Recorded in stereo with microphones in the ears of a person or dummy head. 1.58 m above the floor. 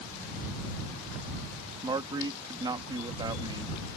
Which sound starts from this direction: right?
A man speaking, at 1.8 s.